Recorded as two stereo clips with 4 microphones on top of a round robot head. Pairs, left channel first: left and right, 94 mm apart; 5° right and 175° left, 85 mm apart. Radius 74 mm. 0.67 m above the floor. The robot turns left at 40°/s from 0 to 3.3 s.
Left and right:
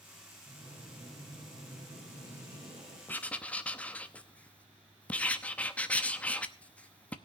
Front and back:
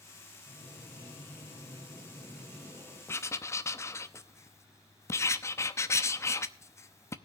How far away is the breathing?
About 5 m.